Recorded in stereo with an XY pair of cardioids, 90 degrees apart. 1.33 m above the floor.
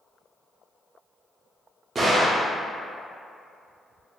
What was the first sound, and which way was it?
A gunshot, 40° right.